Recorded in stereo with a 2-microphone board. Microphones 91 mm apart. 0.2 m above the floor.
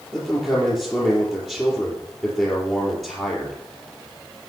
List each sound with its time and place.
0.1 s a man speaking: 5° left (ahead or behind), 4.5 m